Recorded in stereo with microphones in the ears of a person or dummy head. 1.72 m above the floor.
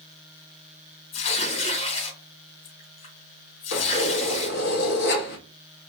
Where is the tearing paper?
35° left (ahead or behind), 3.5 m.